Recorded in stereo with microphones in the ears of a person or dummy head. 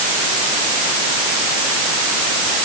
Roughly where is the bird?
I don't hear a bird.